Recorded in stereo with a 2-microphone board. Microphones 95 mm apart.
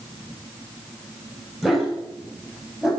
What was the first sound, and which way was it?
A dog barking, centre (ahead or behind).